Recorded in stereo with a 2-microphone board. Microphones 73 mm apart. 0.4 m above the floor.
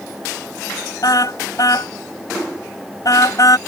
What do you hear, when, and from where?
1.0 s a car horn: 55° left (ahead or behind); by 3.6 s 50° left (ahead or behind)